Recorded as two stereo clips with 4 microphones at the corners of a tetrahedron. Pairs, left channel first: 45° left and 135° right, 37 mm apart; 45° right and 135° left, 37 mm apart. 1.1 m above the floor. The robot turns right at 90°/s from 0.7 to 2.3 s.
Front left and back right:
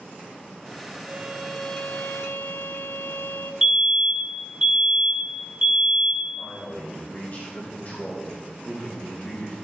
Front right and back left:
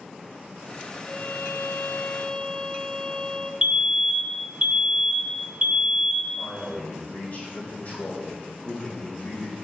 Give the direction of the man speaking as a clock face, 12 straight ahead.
12 o'clock.